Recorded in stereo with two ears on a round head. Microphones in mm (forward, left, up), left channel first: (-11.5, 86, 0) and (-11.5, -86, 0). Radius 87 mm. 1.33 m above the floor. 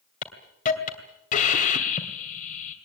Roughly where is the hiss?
Left.